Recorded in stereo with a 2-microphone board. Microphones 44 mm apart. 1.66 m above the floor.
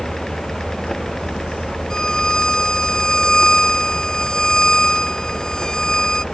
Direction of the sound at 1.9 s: 15° left (ahead or behind).